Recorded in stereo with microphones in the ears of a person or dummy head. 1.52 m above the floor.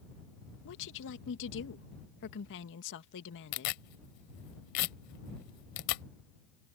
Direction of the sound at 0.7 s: 65° left (ahead or behind).